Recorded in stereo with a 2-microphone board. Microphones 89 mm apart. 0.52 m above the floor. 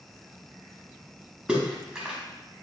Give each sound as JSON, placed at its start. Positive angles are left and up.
{"t": 1.5, "sound": "a splash", "side_deg": -10, "distance_m": 1.0}